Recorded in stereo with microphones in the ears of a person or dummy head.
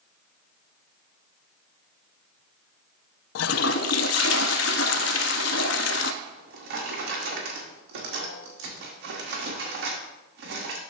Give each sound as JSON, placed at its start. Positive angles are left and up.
{"t": 3.4, "sound": "a toilet flushing", "side_deg": 75, "distance_m": 0.6}
{"t": 6.2, "sound": "a drawer", "side_deg": -65, "distance_m": 1.7}